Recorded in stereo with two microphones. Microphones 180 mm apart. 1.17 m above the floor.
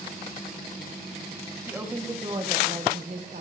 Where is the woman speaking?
10° right (ahead or behind), 1.1 m; by 3.4 s 60° right (ahead or behind), 1.1 m.